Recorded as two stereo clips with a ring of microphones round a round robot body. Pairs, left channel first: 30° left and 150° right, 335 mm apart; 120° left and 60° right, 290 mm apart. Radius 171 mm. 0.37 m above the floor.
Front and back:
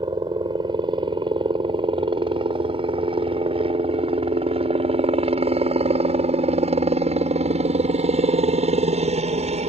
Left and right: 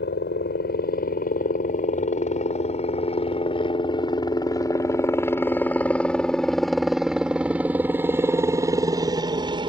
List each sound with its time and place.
0.0 s a helicopter: 140° left; by 9.7 s 110° right